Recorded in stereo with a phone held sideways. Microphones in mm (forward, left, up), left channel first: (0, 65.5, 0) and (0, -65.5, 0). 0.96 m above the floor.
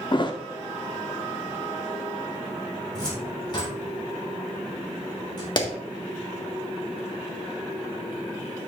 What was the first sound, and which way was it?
A thud, 40° left (ahead or behind).